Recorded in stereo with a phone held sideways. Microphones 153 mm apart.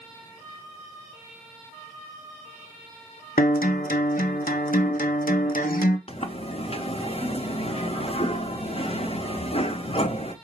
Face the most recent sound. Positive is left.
turn(degrees=40)  # may be behind; listen again after turning